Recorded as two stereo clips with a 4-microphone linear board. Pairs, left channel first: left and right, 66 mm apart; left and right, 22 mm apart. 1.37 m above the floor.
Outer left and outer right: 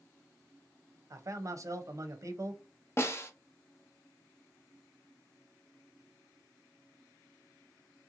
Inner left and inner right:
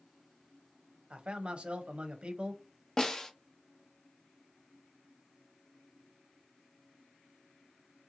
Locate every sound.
1.1 s a man speaking: 50° right (ahead or behind), 0.7 m
3.0 s a snare drum: 40° left (ahead or behind), 0.6 m